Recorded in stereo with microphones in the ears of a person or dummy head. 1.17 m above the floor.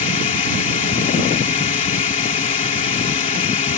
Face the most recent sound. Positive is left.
turn(degrees=40)  # may be behind; listen again after turning